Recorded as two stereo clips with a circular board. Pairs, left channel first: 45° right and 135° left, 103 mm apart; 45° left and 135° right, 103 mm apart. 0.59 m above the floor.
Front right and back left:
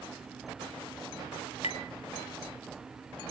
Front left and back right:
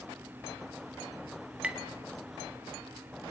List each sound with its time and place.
1.6 s tapping: 55° right, 2.0 m